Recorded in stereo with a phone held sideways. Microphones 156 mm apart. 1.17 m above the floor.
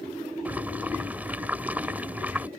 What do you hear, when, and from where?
0.5 s boiling: 10° right (ahead or behind)